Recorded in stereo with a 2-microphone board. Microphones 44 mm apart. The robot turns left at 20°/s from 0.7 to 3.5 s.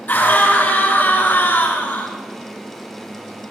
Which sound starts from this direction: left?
A scream, at 0.1 s.